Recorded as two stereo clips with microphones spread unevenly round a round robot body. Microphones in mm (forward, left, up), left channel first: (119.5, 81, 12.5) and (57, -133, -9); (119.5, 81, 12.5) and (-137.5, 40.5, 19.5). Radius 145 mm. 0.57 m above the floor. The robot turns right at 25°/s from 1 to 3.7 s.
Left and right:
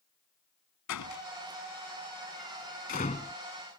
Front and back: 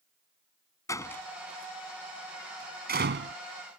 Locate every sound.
0.9 s a door slam: 90° left; by 3.4 s 145° left